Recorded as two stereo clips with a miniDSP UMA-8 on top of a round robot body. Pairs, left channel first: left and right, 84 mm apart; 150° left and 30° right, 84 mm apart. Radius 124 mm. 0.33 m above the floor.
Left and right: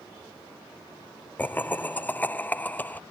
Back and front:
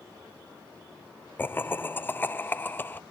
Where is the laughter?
125° left.